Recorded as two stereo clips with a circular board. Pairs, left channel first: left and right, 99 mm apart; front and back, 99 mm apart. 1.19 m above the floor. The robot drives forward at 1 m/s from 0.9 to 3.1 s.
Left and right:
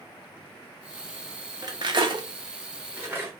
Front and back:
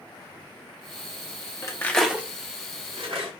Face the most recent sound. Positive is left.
turn(degrees=-155)